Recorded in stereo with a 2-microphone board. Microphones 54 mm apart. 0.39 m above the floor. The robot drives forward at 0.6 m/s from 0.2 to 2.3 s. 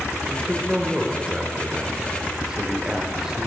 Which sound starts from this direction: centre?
A man speaking, at 0.3 s.